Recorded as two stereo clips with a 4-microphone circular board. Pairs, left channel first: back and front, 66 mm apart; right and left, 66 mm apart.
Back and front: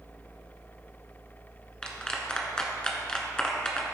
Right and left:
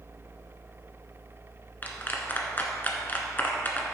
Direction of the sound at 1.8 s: 115° right.